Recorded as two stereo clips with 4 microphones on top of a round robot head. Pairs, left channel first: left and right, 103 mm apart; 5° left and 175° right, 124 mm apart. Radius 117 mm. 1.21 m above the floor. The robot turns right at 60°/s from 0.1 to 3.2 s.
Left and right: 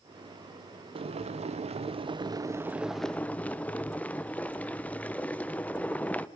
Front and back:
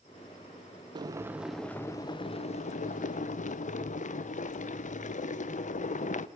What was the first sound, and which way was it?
Boiling, 120° right.